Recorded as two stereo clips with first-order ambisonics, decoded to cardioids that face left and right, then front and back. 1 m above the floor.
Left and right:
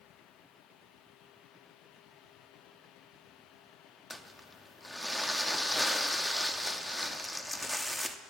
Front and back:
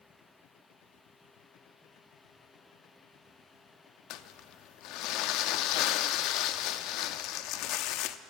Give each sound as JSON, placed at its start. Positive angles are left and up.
{"t": 4.1, "sound": "crumpling", "azimuth_deg": 5, "distance_m": 0.6}